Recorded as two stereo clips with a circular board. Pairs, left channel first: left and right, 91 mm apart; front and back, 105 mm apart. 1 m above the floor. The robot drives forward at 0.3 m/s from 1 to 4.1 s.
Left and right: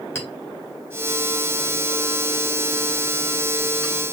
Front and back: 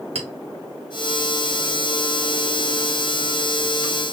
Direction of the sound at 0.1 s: 155° left.